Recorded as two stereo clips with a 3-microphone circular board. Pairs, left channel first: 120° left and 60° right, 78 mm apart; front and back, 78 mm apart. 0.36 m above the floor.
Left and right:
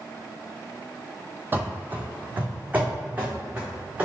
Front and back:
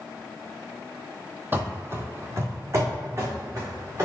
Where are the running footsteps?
120° right, 0.6 m; by 4.0 s 130° right, 2 m.